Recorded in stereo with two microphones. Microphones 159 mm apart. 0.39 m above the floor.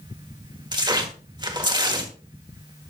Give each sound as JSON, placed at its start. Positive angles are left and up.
{"t": 0.7, "sound": "tearing paper", "side_deg": -25, "distance_m": 1.5}